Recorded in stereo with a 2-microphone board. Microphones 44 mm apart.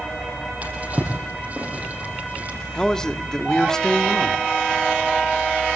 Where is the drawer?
40° right (ahead or behind), 6.5 m.